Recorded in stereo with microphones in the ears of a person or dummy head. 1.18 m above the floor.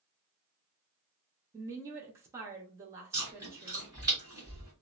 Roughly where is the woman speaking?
Centre.